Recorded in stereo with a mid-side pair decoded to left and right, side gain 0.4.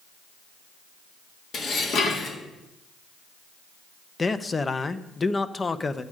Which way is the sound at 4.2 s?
30° left.